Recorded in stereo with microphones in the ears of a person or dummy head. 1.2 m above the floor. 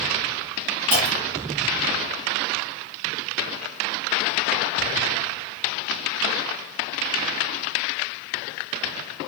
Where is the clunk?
50° right (ahead or behind), 0.8 m.